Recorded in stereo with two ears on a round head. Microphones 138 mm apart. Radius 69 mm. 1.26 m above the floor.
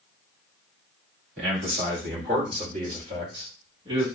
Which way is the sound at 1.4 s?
70° right (ahead or behind).